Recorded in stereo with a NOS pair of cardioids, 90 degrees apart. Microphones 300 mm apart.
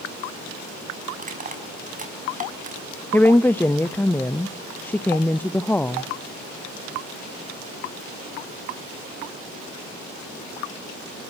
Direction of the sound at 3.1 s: 5° left.